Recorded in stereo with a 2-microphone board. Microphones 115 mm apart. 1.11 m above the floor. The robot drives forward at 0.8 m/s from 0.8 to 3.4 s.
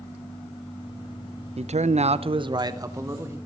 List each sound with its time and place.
1.6 s a man speaking: 60° right (ahead or behind), 0.5 m; by 3.4 s 20° right (ahead or behind), 1.3 m